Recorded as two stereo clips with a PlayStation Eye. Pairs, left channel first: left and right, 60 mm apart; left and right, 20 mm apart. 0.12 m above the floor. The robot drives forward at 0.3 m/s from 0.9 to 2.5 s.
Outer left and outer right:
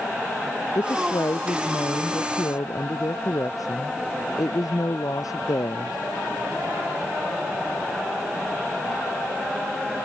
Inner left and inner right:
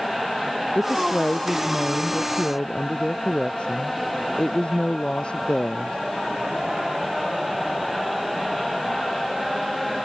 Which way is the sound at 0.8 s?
75° left (ahead or behind).